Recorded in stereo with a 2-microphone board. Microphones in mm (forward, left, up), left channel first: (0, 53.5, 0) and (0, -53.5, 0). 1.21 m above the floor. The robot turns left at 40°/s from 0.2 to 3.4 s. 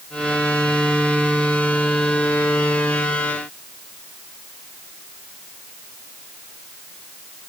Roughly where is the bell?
No bell in this recording.